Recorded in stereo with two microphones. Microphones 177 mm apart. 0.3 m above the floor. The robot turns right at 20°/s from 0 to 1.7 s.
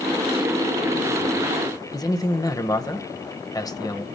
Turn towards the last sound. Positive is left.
turn(degrees=20)  # may be behind; listen again after turning